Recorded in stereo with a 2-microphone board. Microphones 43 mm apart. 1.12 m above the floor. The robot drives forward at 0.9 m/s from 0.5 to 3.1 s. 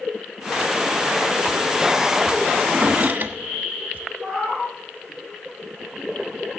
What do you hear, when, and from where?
2.6 s a drawer: 30° right (ahead or behind), 1.6 m; by 4.0 s 40° right (ahead or behind), 1.2 m
4.2 s a cat meowing: 5° left (ahead or behind), 5.5 m